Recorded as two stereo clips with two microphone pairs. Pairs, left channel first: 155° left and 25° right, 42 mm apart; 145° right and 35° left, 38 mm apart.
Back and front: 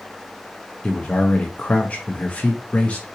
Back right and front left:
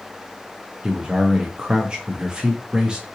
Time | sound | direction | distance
0.8 | a man speaking | 105° left | 0.6 m